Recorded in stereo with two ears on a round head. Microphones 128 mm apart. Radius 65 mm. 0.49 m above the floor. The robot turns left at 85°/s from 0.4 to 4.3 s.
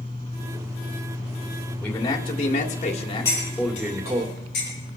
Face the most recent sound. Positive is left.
turn(degrees=70)  # may be behind; listen again after turning